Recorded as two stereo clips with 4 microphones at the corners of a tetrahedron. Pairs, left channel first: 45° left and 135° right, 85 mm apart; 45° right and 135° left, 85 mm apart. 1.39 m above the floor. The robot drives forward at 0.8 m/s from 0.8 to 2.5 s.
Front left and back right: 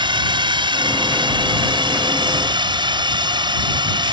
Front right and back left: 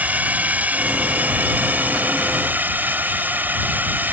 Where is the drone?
155° right.